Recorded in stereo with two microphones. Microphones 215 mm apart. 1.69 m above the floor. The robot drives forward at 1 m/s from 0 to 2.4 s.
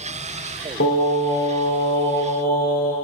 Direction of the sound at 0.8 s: 80° left.